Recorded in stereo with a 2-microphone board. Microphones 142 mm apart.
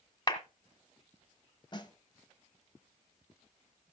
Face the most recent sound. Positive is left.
turn(degrees=35)  # may be behind; listen again after turning